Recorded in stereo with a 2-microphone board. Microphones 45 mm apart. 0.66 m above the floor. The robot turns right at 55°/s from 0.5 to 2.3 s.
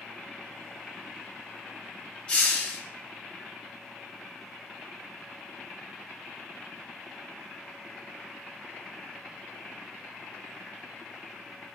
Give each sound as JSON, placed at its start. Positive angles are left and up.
{"t": 2.3, "sound": "a hiss", "side_deg": 20, "distance_m": 1.0}